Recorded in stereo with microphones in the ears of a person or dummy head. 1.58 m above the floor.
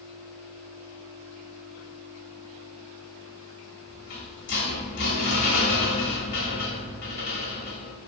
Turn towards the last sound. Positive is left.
turn(degrees=55)  # may be behind; listen again after turning